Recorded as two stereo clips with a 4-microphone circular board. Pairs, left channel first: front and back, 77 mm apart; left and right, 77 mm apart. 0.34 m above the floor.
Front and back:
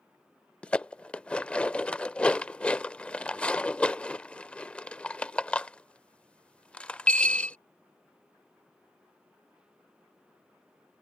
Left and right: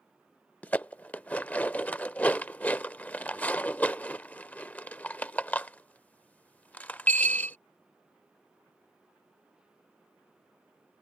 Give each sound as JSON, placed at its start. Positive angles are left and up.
{"t": 0.6, "sound": "dishes clattering", "azimuth_deg": 50}